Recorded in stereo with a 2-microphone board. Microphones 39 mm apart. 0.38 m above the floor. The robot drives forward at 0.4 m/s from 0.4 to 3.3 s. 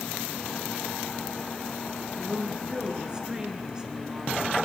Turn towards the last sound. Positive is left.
turn(degrees=-20)  # may be behind; listen again after turning